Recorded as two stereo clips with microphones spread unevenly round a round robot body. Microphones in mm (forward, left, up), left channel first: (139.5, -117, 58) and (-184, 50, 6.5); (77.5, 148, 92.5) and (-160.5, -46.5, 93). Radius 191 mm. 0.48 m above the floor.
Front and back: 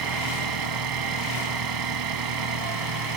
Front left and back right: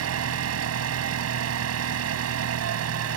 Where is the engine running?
Straight behind.